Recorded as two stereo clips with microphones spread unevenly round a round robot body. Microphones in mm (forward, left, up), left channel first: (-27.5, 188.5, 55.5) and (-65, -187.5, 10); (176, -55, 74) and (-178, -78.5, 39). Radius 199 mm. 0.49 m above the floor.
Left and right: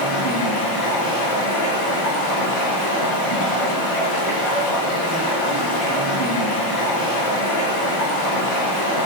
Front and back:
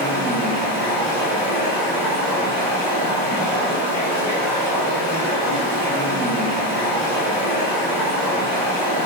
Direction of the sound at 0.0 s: 90° left.